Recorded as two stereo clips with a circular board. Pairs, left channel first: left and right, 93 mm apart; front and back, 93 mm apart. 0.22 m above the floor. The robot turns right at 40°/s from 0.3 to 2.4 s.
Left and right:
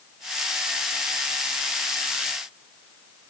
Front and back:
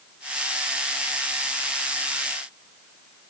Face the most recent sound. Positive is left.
No sound to turn to.